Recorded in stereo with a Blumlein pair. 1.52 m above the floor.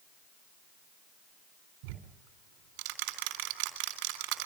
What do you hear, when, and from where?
1.8 s ticking: 45° right, 3.5 m